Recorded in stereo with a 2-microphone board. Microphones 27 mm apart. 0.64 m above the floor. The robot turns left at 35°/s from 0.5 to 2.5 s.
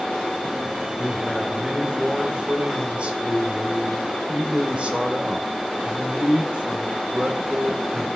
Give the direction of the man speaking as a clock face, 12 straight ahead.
12 o'clock.